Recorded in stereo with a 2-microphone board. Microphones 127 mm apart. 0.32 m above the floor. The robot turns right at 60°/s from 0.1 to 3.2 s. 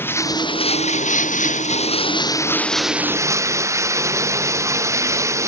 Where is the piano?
I don't hear a piano.